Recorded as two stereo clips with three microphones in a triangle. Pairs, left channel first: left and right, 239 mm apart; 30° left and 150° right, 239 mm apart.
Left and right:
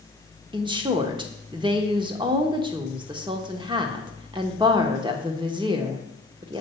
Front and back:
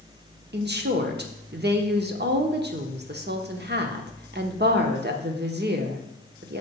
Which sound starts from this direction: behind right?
A woman speaking, at 0.5 s.